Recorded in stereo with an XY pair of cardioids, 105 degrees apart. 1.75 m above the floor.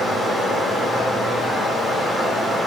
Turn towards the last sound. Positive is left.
turn(degrees=25)